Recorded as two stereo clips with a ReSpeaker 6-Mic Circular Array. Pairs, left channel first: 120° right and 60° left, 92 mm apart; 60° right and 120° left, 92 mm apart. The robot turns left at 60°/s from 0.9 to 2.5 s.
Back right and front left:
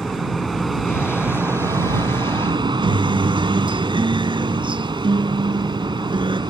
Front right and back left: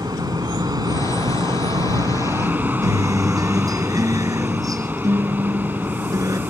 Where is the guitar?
75° left.